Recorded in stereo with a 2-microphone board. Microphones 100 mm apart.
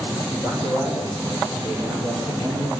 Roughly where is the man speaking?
Right.